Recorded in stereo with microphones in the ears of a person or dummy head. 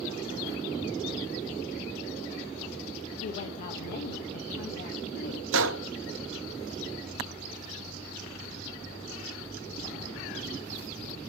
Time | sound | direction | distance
3.2 | a woman speaking | 30° left (ahead or behind) | 1.3 m
5.5 | a gunshot | 60° right (ahead or behind) | 0.8 m